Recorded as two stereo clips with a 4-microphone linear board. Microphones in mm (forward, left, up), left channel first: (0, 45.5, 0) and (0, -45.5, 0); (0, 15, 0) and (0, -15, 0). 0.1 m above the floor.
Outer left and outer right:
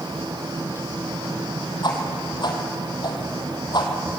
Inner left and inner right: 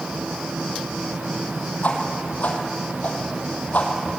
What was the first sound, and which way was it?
A whoosh, 55° left (ahead or behind).